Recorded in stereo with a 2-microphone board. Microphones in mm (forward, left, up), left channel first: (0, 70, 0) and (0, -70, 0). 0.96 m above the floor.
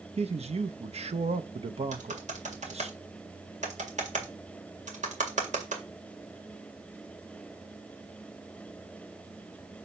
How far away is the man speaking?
About 0.7 m.